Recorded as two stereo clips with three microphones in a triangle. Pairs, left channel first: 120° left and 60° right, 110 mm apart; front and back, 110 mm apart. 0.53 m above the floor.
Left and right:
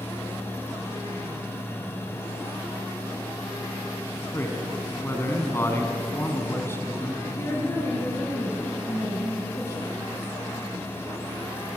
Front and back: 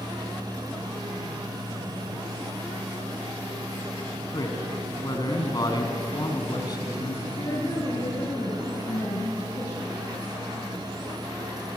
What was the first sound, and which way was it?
A man speaking, 50° left.